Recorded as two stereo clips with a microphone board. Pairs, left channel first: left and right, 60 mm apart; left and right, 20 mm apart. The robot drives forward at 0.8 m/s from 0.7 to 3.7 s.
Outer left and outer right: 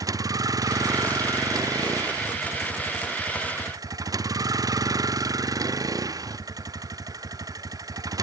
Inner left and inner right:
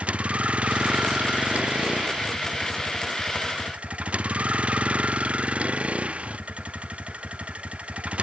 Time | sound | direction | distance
0.0 | a vehicle | 80° right | ?